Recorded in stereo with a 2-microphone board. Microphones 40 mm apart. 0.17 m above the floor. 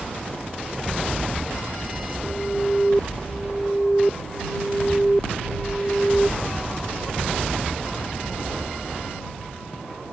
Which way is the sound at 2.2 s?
10° left (ahead or behind).